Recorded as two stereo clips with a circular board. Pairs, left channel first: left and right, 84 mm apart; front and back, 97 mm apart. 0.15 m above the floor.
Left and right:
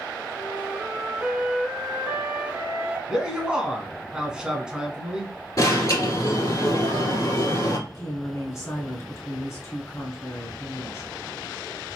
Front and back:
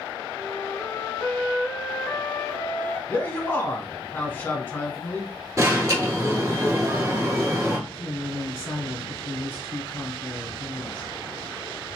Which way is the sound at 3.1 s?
25° right.